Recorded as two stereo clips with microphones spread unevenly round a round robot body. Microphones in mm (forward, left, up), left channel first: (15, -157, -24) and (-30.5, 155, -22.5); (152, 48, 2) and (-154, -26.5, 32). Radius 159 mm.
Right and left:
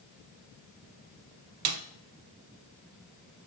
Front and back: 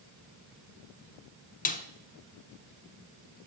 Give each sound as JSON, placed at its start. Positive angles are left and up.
{"t": 1.6, "sound": "a snare drum", "azimuth_deg": 80, "distance_m": 0.8}